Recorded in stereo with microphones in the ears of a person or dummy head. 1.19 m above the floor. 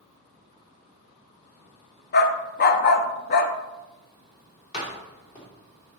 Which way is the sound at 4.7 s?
40° left (ahead or behind).